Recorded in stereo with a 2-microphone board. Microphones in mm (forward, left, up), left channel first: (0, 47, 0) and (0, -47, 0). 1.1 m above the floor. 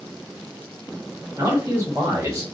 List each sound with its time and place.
1.4 s a man speaking: 30° right (ahead or behind), 1.6 m